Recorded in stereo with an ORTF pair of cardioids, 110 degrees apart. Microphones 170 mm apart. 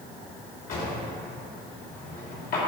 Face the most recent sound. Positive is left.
turn(degrees=65)